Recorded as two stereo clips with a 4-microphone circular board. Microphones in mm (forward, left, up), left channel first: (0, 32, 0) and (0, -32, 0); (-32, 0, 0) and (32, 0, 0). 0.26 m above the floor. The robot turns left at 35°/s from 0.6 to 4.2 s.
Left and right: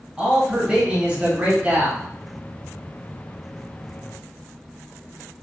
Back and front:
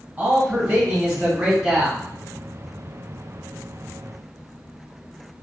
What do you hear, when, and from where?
0.2 s a man speaking: 35° right, 1.4 m; by 2.0 s 85° right, 1.4 m